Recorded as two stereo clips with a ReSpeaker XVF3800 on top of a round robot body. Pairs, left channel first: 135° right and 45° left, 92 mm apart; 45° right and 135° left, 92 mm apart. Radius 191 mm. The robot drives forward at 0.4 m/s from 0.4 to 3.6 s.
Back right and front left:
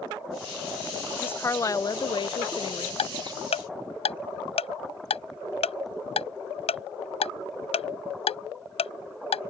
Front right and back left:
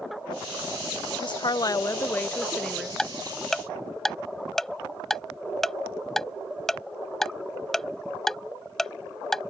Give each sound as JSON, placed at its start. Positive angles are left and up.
{"t": 1.2, "sound": "a woman speaking", "azimuth_deg": -65}
{"t": 3.0, "sound": "ticking", "azimuth_deg": -130}